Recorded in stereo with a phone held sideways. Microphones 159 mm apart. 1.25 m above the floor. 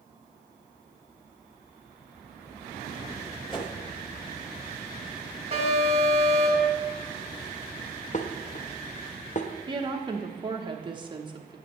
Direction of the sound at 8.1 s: 50° left (ahead or behind).